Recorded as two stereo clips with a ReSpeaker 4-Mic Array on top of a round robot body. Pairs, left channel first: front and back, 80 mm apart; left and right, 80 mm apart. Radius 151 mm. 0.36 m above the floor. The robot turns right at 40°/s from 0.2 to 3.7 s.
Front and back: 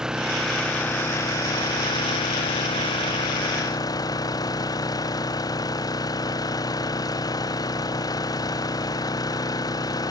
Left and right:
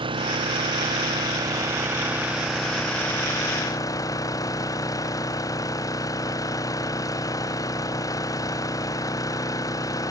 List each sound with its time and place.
0.0 s an engine running: 95° right; by 10.1 s 45° left